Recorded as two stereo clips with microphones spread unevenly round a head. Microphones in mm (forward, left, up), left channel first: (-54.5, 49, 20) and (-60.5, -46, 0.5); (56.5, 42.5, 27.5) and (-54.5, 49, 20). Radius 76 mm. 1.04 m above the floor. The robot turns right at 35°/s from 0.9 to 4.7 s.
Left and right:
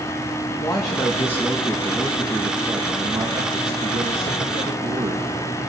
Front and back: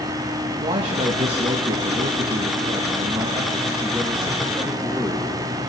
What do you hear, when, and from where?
0.6 s a man speaking: 145° left, 1.4 m; by 5.3 s 85° right, 1.4 m